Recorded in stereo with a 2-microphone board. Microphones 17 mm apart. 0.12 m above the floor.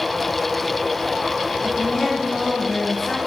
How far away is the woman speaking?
About 2 m.